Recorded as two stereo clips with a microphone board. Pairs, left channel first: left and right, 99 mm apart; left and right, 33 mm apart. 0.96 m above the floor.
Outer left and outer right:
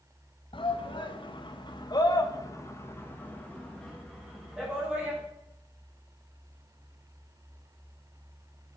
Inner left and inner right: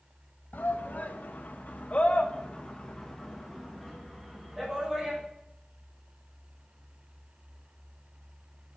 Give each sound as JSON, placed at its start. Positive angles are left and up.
{"t": 0.5, "sound": "a shout", "side_deg": 60, "distance_m": 1.5}